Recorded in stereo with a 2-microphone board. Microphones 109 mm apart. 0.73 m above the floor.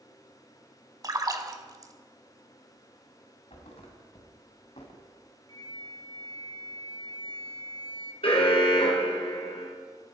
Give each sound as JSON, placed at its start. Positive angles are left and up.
{"t": 1.0, "sound": "a splash", "side_deg": -35, "distance_m": 1.1}
{"t": 3.5, "sound": "a thud", "side_deg": 75, "distance_m": 2.0}
{"t": 5.5, "sound": "a flute", "side_deg": -45, "distance_m": 1.2}
{"t": 8.2, "sound": "an alarm", "side_deg": 60, "distance_m": 3.5}